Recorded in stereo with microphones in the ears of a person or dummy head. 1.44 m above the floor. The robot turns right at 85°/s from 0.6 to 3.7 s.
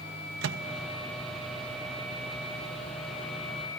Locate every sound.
0.4 s a microwave: 75° right (ahead or behind), 1.0 m; by 3.7 s 25° left (ahead or behind), 1.0 m